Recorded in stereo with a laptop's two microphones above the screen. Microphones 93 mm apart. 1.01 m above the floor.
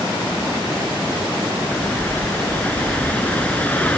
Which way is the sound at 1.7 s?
15° left (ahead or behind).